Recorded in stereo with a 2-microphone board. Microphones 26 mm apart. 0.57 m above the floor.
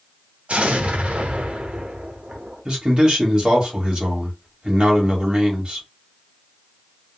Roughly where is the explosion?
Right.